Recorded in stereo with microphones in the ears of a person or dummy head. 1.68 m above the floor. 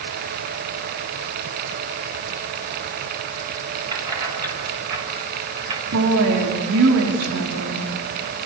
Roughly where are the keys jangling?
Right.